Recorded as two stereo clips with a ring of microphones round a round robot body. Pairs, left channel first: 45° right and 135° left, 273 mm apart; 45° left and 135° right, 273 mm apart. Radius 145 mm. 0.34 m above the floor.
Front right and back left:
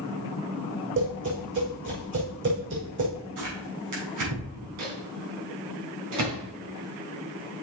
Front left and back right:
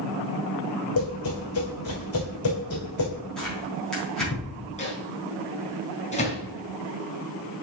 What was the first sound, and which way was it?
Tapping, 85° left.